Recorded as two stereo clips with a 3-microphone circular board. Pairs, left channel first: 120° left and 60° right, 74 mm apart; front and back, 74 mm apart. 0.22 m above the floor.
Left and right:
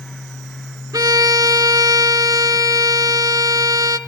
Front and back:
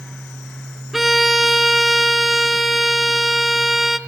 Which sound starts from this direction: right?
A violin, at 0.9 s.